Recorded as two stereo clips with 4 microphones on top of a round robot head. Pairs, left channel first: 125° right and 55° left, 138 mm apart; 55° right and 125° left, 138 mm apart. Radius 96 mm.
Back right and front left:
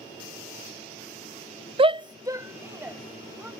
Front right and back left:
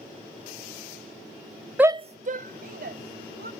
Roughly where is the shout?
Ahead left.